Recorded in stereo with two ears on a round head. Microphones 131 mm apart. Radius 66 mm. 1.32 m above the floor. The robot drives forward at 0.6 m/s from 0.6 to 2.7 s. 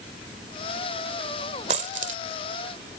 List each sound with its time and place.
1.7 s a dropped coin: 50° right (ahead or behind); by 2.2 s 55° right (ahead or behind)